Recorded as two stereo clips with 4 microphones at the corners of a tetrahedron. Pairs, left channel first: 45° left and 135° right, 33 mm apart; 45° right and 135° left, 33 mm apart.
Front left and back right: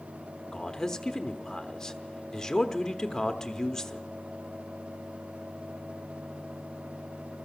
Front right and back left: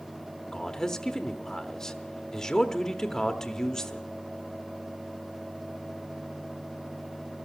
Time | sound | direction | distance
0.5 | a man speaking | straight ahead | 0.9 m